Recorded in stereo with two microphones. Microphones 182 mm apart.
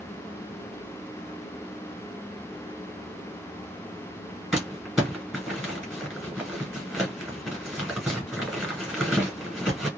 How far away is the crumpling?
About 1.8 m.